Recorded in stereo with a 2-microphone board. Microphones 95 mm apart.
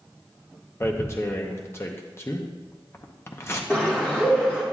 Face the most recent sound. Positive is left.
turn(degrees=15)  # may be behind; listen again after turning